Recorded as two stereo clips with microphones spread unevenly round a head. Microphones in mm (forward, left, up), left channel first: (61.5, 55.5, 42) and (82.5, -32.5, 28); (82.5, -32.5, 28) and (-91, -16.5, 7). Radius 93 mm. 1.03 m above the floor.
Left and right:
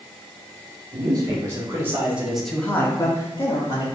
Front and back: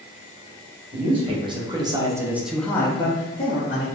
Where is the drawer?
No drawer in this recording.